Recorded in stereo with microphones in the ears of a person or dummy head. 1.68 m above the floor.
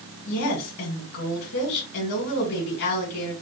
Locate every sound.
0.3 s a woman speaking: 55° left (ahead or behind), 1.9 m